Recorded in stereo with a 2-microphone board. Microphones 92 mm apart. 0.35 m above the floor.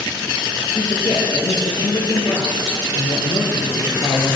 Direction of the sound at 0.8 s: 50° left (ahead or behind).